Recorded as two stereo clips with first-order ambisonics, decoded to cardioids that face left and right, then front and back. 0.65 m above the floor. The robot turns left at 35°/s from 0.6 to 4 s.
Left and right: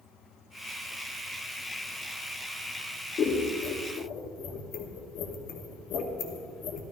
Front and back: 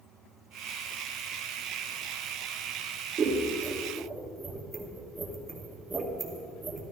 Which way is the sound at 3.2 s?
130° left.